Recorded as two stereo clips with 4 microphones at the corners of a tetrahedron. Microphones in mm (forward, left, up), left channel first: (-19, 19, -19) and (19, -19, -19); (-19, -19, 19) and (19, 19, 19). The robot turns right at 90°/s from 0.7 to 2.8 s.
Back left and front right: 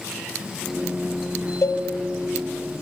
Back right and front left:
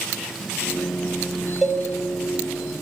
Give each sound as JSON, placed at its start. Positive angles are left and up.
{"t": 1.6, "sound": "a cowbell", "azimuth_deg": 125, "distance_m": 1.5}